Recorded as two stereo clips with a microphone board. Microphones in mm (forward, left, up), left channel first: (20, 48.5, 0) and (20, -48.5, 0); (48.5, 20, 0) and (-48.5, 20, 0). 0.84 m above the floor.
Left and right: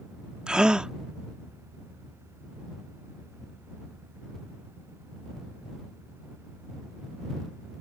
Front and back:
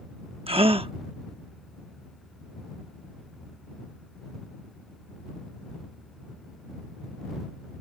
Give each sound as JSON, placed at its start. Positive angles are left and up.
{"t": 0.5, "sound": "a gasp", "azimuth_deg": -170}